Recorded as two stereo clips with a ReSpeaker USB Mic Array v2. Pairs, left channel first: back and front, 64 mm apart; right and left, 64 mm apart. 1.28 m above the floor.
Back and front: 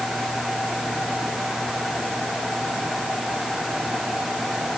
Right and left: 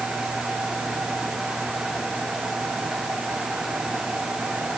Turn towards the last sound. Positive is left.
No sound to turn to.